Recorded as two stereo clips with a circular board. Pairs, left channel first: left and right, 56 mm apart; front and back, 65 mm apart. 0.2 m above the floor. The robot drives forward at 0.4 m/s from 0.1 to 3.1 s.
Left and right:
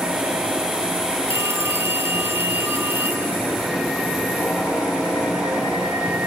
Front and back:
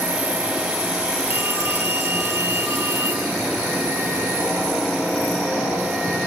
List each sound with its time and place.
1.3 s a phone ringing: 125° right, 3.5 m; by 3.3 s 135° right, 4 m